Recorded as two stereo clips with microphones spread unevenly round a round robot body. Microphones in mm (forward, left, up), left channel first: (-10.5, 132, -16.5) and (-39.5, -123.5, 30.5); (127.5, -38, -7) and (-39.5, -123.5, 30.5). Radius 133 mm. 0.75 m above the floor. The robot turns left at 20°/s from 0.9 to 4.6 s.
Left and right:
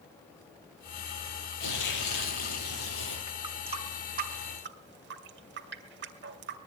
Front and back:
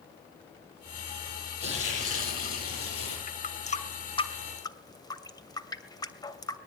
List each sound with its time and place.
1.6 s tearing paper: 65° left, 8 m; by 3.2 s 35° left, 8 m
3.3 s a running tap: 15° right, 2.5 m; by 6.6 s 45° right, 2.5 m